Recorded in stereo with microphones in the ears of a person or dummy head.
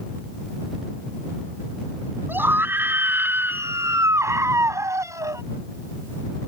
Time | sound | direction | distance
2.3 | a scream | 5° right (ahead or behind) | ?